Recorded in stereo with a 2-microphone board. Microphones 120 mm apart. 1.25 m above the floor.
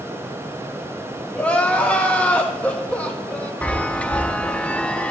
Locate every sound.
1.4 s crying: 10° left (ahead or behind), 1.1 m
3.6 s a chime: 10° left (ahead or behind), 0.5 m